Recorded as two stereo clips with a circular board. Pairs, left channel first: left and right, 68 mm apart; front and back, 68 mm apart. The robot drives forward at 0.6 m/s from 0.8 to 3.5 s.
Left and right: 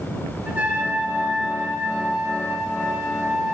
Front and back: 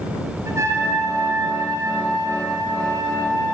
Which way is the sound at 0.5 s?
160° right.